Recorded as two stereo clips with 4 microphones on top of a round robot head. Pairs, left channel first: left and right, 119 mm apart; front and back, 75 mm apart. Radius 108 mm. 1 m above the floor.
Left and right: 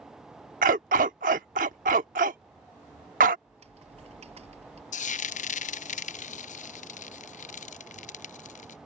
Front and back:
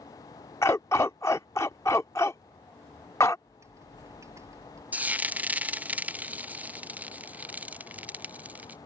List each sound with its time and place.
0.6 s a dog barking: 70° right
3.5 s typing on a keyboard: 120° right
4.9 s frying: 105° left